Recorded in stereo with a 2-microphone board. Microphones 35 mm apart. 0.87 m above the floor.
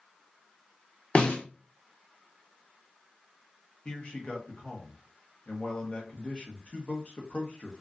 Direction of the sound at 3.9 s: 30° left (ahead or behind).